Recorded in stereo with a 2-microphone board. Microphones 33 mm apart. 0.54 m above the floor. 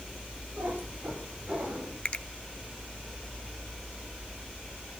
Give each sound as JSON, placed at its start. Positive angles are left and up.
{"t": 0.6, "sound": "a cat meowing", "side_deg": -55, "distance_m": 9.5}
{"t": 2.0, "sound": "a finger snap", "side_deg": 35, "distance_m": 0.6}